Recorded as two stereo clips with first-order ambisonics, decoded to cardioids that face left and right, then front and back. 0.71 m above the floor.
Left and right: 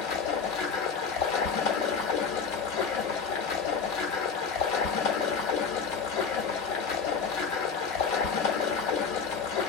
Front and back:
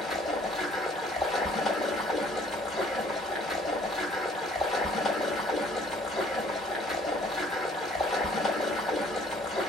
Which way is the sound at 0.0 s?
75° left.